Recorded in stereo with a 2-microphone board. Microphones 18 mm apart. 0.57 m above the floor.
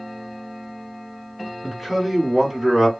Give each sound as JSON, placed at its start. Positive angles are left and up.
{"t": 1.6, "sound": "a man speaking", "side_deg": -10, "distance_m": 1.5}